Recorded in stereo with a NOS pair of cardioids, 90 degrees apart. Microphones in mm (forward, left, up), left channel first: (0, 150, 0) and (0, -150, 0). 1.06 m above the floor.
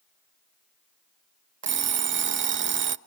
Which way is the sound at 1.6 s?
40° right.